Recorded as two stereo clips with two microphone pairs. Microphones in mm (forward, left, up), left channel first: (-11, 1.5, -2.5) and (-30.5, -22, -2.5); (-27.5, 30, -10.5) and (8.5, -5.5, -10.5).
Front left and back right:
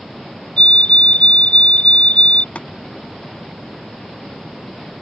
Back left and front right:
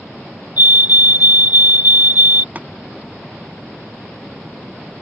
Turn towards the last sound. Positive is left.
turn(degrees=10)